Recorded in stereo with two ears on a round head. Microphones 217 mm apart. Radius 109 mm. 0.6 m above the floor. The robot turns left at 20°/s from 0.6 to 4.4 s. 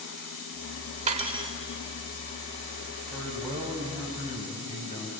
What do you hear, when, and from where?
1.1 s cutlery clinking: 30° right (ahead or behind), 1.4 m; by 1.5 s 20° right (ahead or behind), 1.4 m
3.1 s a man speaking: centre (ahead or behind), 5 m; by 5.1 s 25° left (ahead or behind), 5 m